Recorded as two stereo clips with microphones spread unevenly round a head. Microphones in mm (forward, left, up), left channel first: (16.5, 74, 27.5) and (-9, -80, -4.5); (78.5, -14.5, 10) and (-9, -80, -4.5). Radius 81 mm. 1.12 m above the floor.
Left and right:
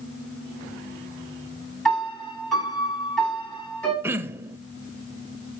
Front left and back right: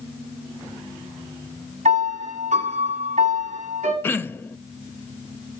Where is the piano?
165° left, 8.5 m.